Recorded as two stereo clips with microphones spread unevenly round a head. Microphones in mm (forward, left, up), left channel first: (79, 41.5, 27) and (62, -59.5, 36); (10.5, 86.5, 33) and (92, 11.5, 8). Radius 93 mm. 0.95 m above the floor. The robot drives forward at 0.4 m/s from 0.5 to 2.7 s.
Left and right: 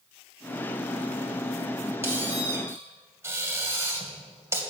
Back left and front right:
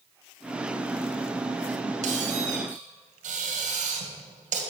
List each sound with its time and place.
2.0 s a squeak: 30° right, 2.5 m; by 4.6 s 35° right, 2 m